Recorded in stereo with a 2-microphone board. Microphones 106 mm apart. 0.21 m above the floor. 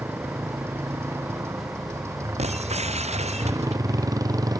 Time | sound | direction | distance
0.0 | a motorcycle | 20° right (ahead or behind) | ?
2.4 | breaking glass | 85° right | ?